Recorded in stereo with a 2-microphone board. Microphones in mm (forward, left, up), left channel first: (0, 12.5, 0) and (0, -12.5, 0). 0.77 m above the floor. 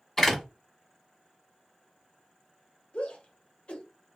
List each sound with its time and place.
0.2 s a door slam: 10° left (ahead or behind), 1.1 m
2.9 s a shout: 55° left (ahead or behind), 0.9 m